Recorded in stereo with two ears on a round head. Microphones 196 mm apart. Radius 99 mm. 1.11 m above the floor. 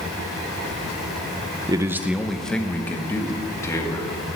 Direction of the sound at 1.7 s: 20° right (ahead or behind).